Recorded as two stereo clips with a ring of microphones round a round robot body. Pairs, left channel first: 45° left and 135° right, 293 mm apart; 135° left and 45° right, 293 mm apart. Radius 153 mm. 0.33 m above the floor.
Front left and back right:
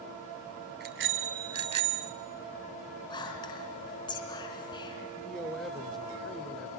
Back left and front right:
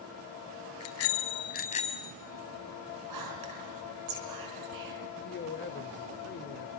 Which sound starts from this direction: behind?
A bicycle bell, at 0.8 s.